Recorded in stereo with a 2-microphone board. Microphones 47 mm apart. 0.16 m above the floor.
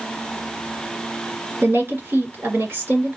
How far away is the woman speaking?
About 2 m.